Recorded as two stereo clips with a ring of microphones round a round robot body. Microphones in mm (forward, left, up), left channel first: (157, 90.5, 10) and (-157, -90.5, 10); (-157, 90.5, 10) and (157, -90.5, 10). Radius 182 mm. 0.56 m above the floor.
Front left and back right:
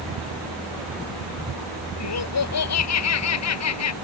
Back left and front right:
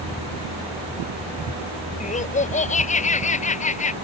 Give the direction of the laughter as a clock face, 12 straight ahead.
9 o'clock.